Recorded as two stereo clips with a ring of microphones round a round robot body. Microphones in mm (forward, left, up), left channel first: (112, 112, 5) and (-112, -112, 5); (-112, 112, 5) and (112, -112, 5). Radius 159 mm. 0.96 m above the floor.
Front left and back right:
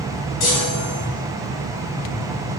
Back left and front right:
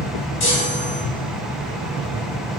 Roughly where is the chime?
Left.